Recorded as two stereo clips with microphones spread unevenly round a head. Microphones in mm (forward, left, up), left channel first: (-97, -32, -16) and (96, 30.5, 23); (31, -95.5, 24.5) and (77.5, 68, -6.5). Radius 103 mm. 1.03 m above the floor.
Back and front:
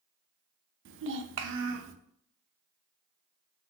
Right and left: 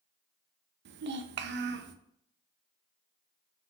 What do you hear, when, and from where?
0.8 s a child speaking: 50° left, 0.6 m